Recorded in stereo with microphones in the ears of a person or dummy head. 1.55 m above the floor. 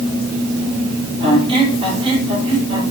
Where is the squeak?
35° right (ahead or behind), 4 m.